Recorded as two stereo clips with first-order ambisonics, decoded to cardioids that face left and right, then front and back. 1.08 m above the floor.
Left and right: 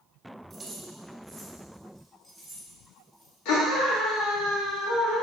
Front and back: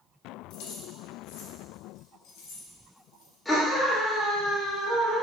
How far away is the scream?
About 2 m.